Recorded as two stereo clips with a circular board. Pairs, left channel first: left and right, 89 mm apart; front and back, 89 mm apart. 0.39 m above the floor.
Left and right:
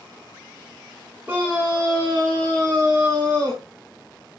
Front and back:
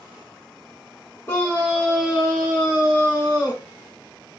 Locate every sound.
1.3 s a scream: 40° right, 1.0 m; by 3.6 s 120° right, 1.7 m